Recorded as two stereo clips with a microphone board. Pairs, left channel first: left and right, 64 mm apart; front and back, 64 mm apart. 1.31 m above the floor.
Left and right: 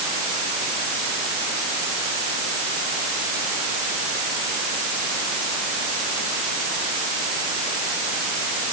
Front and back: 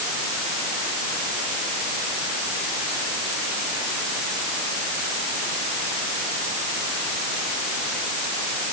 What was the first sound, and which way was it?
Only background noise.